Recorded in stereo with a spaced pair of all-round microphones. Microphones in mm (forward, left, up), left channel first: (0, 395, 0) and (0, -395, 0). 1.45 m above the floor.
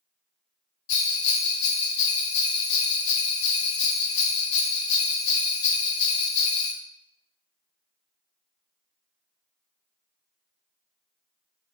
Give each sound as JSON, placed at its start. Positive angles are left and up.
{"t": 0.9, "sound": "a bell", "side_deg": 60, "distance_m": 0.6}